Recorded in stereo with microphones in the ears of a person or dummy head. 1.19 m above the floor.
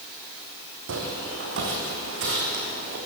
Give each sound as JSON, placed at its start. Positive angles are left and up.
{"t": 0.9, "sound": "footsteps", "side_deg": -70, "distance_m": 4.0}